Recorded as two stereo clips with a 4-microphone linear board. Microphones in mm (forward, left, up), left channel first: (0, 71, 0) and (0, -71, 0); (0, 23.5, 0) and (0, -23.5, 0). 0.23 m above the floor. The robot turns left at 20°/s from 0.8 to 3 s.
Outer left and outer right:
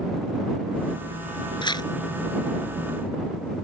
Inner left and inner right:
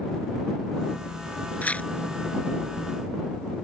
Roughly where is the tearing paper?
Left.